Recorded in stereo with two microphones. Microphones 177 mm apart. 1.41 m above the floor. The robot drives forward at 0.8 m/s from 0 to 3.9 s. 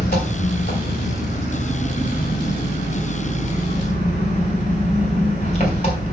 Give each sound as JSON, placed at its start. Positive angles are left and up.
{"t": 0.0, "sound": "an engine running", "side_deg": 70, "distance_m": 2.5}